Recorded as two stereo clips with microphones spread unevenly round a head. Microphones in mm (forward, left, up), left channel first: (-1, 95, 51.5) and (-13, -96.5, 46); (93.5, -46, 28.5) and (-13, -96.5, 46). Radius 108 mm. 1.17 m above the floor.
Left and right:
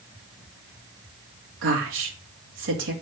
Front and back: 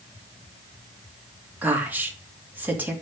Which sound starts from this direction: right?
A woman speaking, at 1.6 s.